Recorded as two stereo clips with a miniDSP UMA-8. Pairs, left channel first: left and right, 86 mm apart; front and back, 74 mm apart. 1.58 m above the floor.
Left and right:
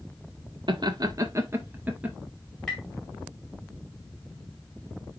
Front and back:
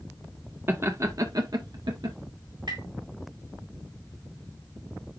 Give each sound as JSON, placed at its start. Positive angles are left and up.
{"t": 0.7, "sound": "laughter", "azimuth_deg": -120, "distance_m": 1.6}
{"t": 2.7, "sound": "tapping", "azimuth_deg": 175, "distance_m": 5.0}